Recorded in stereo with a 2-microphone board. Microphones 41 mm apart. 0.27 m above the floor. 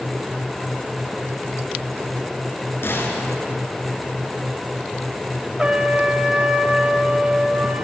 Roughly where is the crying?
No crying in this recording.